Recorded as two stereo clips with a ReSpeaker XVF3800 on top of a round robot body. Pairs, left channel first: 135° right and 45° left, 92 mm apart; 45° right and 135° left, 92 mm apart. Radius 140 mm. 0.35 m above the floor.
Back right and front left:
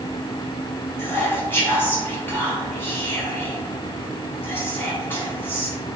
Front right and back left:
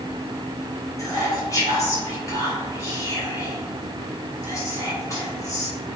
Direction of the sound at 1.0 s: 80° right.